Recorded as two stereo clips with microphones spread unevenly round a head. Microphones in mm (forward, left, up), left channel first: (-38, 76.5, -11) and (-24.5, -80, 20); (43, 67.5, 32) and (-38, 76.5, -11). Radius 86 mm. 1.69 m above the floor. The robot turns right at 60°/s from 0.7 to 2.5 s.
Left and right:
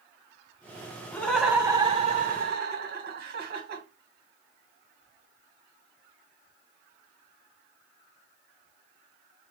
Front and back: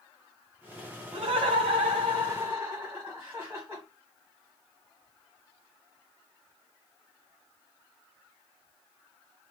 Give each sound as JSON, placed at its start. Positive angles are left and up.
{"t": 1.1, "sound": "laughter", "azimuth_deg": 170, "distance_m": 1.7}